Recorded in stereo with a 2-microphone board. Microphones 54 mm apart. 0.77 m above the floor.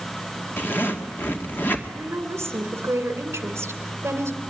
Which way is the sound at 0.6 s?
40° left (ahead or behind).